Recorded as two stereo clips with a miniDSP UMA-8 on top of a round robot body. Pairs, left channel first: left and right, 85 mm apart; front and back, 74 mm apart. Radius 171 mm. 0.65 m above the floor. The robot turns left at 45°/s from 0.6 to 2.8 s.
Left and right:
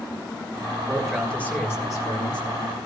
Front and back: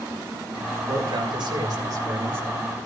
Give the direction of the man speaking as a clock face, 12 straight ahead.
6 o'clock.